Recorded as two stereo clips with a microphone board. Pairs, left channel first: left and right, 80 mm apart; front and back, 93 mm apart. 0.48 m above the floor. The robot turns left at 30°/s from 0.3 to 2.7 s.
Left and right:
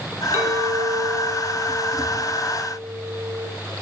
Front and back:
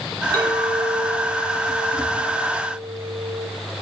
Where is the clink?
145° right, 1.9 m; by 3.5 s 145° left, 1.9 m.